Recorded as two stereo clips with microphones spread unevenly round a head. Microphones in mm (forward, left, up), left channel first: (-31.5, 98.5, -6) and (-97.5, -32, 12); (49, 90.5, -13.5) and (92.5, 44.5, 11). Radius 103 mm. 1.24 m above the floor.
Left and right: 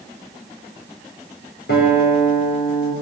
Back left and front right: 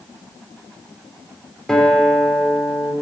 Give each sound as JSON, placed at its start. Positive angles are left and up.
{"t": 1.7, "sound": "a guitar", "azimuth_deg": 50, "distance_m": 4.0}